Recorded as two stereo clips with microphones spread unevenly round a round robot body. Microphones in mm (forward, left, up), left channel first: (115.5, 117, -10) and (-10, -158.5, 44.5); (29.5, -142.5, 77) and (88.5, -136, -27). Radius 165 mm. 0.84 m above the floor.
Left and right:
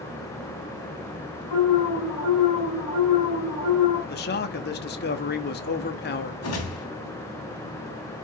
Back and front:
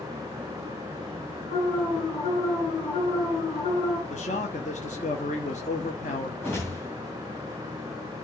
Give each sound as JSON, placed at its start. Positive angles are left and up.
{"t": 1.5, "sound": "an alarm", "azimuth_deg": 125, "distance_m": 4.0}
{"t": 4.1, "sound": "a man speaking", "azimuth_deg": 120, "distance_m": 0.9}
{"t": 6.4, "sound": "a whoosh", "azimuth_deg": 115, "distance_m": 2.5}